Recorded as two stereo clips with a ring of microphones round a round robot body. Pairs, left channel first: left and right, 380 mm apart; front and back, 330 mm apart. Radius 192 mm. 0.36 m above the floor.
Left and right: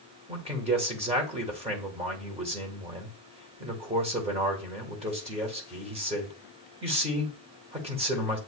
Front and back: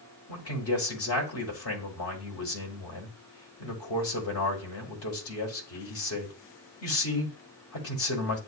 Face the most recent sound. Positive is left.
turn(degrees=-20)